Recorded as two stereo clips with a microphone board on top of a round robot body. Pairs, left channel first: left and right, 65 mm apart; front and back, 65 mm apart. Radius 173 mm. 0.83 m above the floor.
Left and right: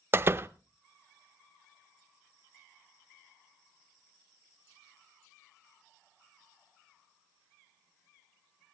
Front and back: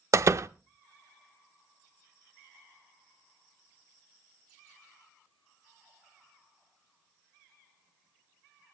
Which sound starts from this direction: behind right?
A door slam, at 0.1 s.